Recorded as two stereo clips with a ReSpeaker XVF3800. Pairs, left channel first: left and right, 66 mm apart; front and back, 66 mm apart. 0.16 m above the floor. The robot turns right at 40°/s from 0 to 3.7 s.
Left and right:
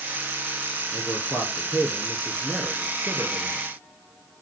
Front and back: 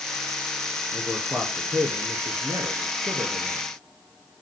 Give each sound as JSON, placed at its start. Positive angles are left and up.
{"t": 0.9, "sound": "a man speaking", "azimuth_deg": 115, "distance_m": 2.5}